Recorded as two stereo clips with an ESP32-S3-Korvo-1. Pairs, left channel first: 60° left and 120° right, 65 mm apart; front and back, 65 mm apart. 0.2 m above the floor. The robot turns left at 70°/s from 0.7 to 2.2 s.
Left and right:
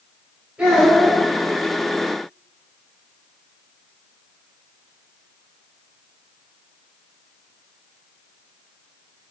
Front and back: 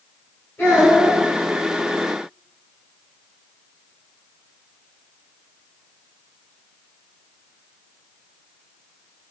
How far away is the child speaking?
About 1.7 m.